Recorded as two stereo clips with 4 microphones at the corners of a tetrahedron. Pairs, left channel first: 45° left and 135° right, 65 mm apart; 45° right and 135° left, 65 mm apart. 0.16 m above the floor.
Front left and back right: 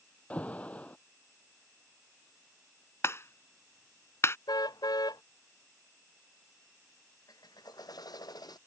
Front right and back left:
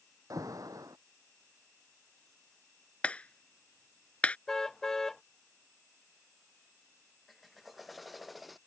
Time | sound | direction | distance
0.3 | an alarm | 115° left | ?
3.0 | a clap | 20° left | ?
4.5 | a car horn | 40° left | ?
7.3 | a drill | 45° left | ?